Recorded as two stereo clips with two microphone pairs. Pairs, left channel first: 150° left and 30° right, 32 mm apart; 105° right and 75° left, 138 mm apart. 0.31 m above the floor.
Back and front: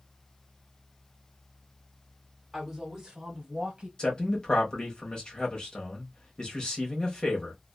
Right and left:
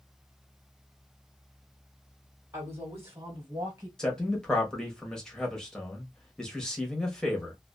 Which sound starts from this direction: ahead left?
A woman speaking, at 2.5 s.